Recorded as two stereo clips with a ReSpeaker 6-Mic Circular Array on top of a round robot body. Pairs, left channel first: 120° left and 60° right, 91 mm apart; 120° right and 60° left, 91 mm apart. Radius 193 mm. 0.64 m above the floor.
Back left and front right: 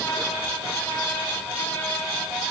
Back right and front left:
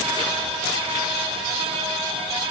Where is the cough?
I don't hear a cough.